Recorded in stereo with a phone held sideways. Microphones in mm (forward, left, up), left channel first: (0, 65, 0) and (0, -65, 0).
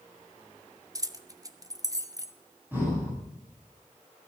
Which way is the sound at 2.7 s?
15° right (ahead or behind).